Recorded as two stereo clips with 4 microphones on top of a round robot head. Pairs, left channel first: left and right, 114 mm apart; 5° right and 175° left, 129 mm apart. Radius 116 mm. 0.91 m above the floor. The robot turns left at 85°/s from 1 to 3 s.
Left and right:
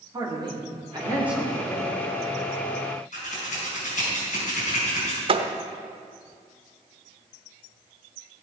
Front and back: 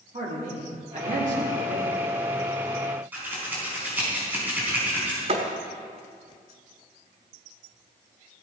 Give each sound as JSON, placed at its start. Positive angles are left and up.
{"t": 0.1, "sound": "a man speaking", "azimuth_deg": -145, "distance_m": 3.0}
{"t": 3.1, "sound": "scissors", "azimuth_deg": 100, "distance_m": 4.5}
{"t": 5.3, "sound": "a thud", "azimuth_deg": -130, "distance_m": 0.8}